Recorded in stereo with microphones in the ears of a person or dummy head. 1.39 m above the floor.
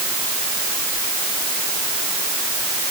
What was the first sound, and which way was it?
Only background noise.